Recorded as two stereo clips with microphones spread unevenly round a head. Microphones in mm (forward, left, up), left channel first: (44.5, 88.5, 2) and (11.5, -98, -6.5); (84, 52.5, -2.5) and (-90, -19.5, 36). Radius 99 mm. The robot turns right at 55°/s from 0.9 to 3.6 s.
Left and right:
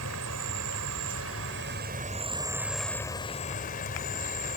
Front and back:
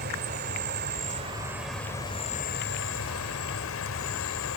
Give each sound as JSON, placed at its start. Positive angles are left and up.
{"t": 0.0, "sound": "an insect", "azimuth_deg": -115}